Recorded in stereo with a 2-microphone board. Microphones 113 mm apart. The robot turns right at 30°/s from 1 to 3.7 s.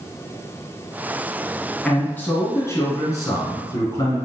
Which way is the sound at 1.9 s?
10° left (ahead or behind).